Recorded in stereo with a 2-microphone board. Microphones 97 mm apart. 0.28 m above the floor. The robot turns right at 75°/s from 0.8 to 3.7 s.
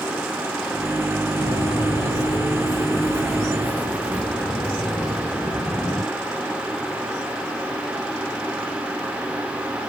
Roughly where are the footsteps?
Left.